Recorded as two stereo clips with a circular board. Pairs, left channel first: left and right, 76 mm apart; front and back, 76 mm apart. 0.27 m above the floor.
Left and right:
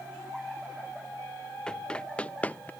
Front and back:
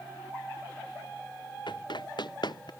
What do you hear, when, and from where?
1.7 s running footsteps: 10° left; by 2.7 s 20° left